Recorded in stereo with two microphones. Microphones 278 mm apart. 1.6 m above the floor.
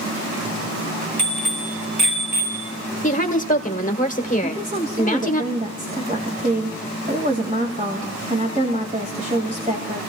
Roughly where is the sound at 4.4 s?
Right.